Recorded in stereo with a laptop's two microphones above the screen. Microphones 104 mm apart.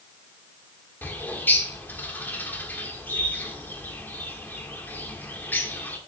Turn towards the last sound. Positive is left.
turn(degrees=20)  # may be behind; listen again after turning